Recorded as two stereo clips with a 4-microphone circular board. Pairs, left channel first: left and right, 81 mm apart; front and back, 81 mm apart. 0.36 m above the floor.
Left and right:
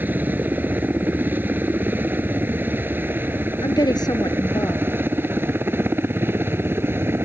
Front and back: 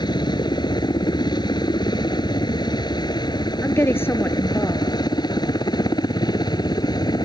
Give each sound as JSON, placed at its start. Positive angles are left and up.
{"t": 0.0, "sound": "a helicopter", "azimuth_deg": -25}
{"t": 3.6, "sound": "a woman speaking", "azimuth_deg": 60}